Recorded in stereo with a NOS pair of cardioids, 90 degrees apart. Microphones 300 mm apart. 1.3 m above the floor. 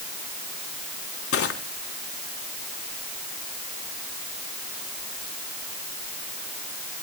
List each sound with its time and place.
1.3 s crushing: 50° left, 3.5 m